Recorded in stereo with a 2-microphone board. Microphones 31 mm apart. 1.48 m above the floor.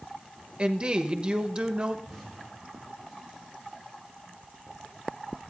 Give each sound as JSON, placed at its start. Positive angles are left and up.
{"t": 0.6, "sound": "a woman speaking", "side_deg": -35, "distance_m": 1.0}
{"t": 2.0, "sound": "an explosion", "side_deg": 5, "distance_m": 4.0}